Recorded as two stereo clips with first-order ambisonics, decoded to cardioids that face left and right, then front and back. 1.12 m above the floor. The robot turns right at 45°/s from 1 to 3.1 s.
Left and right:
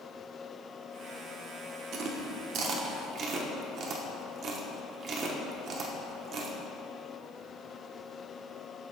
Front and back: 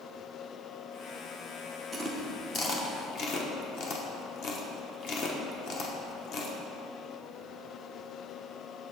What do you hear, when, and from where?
1.9 s chewing: 90° right, 0.8 m; by 6.6 s 35° right, 0.8 m